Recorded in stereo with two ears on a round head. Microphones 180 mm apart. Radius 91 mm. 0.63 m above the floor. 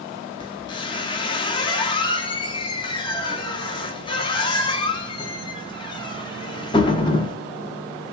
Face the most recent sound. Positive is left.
turn(degrees=25)  # may be behind; listen again after turning